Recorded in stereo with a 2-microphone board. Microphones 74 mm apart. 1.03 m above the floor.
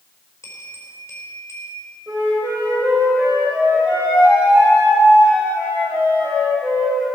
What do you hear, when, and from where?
0.4 s a bell: 40° left (ahead or behind), 4.5 m
2.1 s a flute: 25° right (ahead or behind), 6 m